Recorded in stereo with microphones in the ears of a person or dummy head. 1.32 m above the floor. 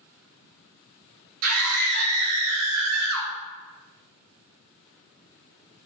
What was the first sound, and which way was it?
A scream, 70° right (ahead or behind).